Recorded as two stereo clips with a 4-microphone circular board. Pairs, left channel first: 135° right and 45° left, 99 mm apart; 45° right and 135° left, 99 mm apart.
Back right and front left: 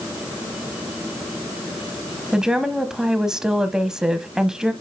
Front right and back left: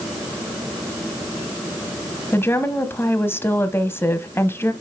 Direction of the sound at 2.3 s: 30° right.